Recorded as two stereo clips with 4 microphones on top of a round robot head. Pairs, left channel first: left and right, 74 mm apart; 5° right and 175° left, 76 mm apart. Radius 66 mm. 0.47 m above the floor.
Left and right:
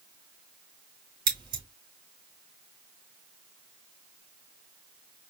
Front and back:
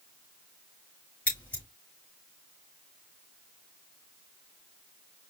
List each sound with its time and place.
1.3 s scissors: 75° right, 4 m